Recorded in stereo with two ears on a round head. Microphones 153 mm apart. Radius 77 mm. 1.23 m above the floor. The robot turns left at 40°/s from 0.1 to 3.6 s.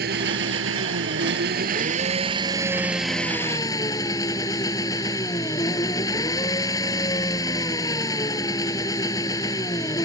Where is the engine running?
60° right; by 10.1 s 160° left.